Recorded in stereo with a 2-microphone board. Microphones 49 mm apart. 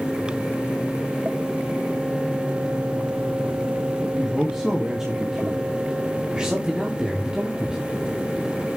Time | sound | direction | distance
4.2 | a man speaking | 10° right (ahead or behind) | 1.9 m
6.3 | a man speaking | 20° right (ahead or behind) | 2.5 m